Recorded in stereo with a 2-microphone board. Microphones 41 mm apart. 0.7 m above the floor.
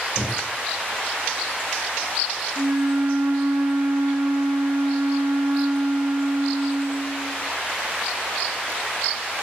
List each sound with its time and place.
0.2 s breathing: 75° right (ahead or behind), 9 m
2.6 s a flute: 75° right (ahead or behind), 2 m